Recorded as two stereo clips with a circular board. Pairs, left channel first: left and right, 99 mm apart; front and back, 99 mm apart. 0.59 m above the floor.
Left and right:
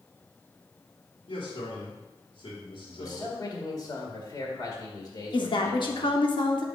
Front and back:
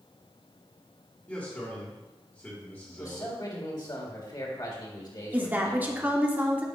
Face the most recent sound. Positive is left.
turn(degrees=110)